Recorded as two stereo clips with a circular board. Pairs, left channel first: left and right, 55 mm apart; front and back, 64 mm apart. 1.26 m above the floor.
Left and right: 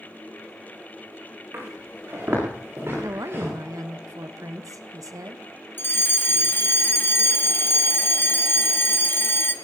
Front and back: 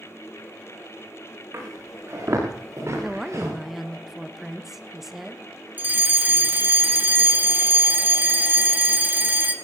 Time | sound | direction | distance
1.5 | footsteps | 140° right | 7.5 m
3.0 | a woman speaking | 95° right | 1.2 m
5.8 | a fire alarm | 125° left | 1.3 m